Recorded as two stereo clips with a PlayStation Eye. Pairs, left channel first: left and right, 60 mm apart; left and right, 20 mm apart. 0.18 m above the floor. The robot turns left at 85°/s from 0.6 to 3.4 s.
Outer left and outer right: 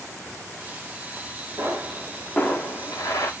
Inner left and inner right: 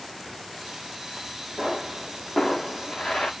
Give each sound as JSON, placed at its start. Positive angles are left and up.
{"t": 1.6, "sound": "a pop", "azimuth_deg": -135, "distance_m": 4.5}